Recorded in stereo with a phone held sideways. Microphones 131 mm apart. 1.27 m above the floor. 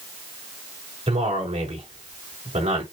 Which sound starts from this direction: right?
A man speaking, at 1.1 s.